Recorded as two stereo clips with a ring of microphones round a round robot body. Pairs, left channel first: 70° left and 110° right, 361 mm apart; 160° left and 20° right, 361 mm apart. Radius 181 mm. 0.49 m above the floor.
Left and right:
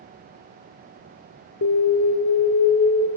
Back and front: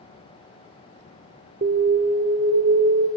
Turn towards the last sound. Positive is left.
turn(degrees=30)